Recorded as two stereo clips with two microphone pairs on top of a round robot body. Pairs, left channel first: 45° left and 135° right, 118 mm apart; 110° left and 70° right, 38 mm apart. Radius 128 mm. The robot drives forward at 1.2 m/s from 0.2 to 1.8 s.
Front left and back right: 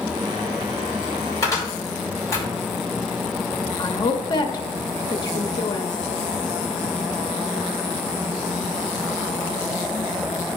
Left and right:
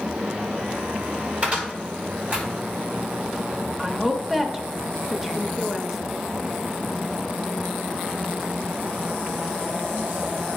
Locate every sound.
1.4 s a cupboard door: 20° right, 4.5 m
3.8 s a woman speaking: 10° left, 1.6 m